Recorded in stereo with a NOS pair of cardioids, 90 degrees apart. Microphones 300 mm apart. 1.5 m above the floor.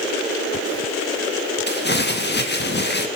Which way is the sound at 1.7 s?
40° left.